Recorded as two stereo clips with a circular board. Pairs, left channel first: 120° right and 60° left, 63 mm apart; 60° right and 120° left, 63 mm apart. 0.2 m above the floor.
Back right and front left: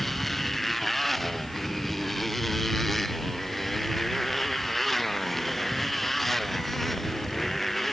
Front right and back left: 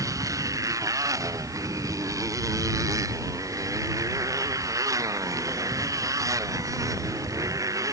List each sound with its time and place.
0.0 s a motorcycle: 150° left